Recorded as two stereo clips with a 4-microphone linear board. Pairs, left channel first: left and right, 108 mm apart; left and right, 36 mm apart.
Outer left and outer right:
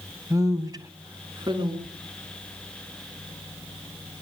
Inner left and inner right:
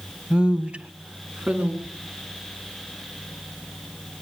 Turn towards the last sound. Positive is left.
turn(degrees=-5)  # may be behind; listen again after turning